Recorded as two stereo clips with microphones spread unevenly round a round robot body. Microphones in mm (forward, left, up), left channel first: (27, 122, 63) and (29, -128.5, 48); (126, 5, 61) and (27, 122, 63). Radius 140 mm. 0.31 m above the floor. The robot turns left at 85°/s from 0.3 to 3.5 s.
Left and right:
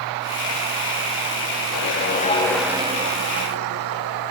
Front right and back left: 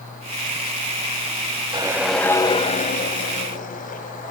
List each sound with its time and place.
1.7 s a whoosh: 70° left, 1.4 m; by 4.3 s 80° right, 1.4 m